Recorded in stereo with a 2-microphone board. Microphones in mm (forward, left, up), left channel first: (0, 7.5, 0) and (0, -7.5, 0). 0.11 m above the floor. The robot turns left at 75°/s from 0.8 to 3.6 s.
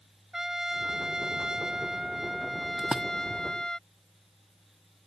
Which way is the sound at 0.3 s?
45° right.